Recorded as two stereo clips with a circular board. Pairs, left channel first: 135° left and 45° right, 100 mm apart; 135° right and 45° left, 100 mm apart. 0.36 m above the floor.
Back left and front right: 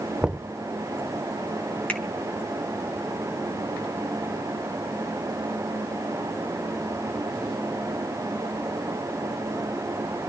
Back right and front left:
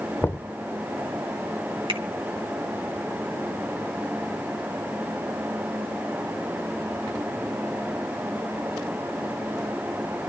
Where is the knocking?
115° right, 0.5 m.